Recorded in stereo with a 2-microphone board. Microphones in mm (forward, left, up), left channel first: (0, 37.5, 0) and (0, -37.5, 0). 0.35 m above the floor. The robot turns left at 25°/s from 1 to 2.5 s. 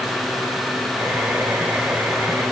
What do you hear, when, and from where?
Only background noise.